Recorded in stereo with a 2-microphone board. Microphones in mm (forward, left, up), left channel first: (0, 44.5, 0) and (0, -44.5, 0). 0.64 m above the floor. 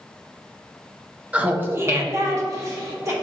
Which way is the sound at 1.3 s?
15° right (ahead or behind).